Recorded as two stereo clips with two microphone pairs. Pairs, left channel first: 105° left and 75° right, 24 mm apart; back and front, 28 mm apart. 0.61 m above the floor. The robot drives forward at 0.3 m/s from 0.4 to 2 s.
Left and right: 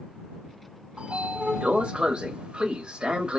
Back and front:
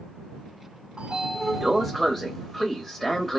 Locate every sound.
1.0 s a sliding door: 55° right, 0.6 m; by 3.4 s 95° right, 0.5 m